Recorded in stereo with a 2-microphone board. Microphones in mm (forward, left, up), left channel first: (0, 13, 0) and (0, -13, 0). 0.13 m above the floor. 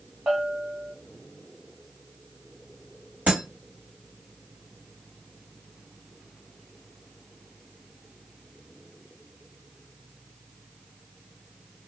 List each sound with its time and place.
0.3 s a bell: 45° right (ahead or behind), 1.5 m
3.3 s breaking glass: 70° right (ahead or behind), 2.5 m